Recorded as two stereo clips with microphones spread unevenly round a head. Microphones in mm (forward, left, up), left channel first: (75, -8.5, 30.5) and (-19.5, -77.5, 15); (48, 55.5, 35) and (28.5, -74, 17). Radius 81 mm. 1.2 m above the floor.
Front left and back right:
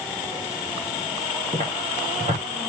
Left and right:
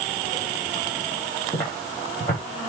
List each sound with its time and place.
1.5 s footsteps: 160° left, 4.5 m